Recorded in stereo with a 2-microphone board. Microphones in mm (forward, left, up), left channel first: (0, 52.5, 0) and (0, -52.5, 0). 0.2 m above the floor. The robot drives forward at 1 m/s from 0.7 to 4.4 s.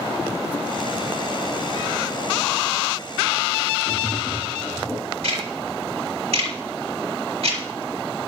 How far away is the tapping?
About 2 m.